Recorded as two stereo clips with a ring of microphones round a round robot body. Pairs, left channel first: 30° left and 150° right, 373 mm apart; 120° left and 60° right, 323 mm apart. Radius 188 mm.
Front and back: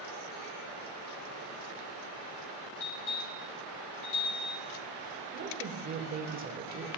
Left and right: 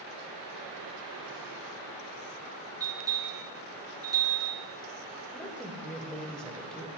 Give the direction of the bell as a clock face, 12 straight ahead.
11 o'clock.